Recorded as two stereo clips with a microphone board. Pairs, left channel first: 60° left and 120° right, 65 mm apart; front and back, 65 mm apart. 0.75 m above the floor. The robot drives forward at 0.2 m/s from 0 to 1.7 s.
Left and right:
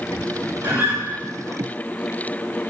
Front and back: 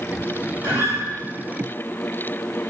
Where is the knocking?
I don't hear knocking.